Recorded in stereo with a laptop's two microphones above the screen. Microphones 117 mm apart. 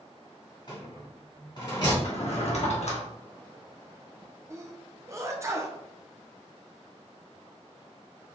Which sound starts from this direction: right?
A sneeze, at 4.5 s.